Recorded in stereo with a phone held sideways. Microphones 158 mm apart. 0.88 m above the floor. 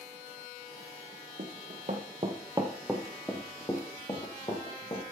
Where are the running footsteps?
60° right (ahead or behind), 2 m; by 5.1 s 40° left (ahead or behind), 3.5 m.